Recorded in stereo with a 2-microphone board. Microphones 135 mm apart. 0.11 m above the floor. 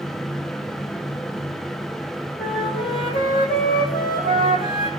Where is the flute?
80° left, 3.5 m.